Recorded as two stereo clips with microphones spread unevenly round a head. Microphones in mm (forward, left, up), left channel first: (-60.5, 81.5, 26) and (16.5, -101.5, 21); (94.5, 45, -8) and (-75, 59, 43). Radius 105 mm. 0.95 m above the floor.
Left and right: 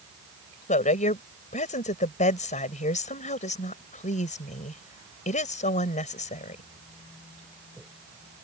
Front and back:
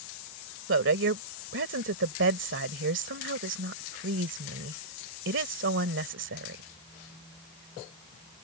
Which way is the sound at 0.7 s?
170° left.